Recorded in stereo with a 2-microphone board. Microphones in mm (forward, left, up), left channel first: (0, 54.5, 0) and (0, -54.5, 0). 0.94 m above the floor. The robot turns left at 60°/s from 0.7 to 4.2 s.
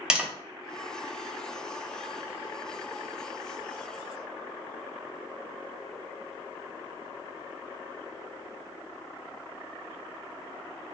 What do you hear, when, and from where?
0.1 s tapping: 10° right (ahead or behind), 0.6 m